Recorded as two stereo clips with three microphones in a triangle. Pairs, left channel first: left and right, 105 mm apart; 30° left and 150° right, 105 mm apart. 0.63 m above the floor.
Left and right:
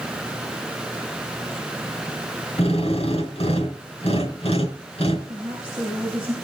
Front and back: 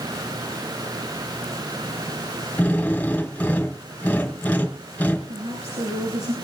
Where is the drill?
105° left, 4 m.